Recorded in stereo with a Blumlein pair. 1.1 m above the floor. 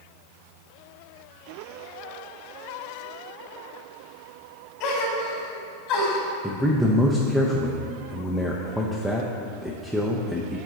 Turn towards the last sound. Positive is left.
turn(degrees=0)